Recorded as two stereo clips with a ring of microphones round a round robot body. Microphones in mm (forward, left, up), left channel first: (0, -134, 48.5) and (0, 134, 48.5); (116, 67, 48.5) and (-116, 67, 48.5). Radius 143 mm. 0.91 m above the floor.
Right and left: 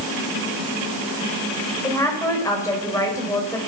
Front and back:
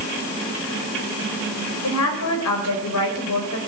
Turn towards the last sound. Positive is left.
turn(degrees=-10)